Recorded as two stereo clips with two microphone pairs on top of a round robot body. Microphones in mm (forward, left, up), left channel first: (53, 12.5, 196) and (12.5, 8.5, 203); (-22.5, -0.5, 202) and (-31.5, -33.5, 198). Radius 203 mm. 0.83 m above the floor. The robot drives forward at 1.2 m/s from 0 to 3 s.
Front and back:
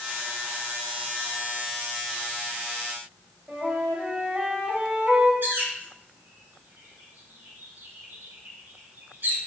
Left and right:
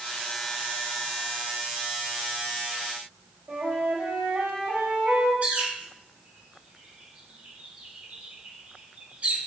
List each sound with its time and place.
3.5 s a flute: 110° right, 3 m
5.4 s a bird: 145° right, 3.5 m